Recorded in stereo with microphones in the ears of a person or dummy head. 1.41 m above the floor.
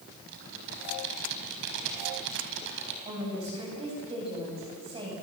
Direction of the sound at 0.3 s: 75° right (ahead or behind).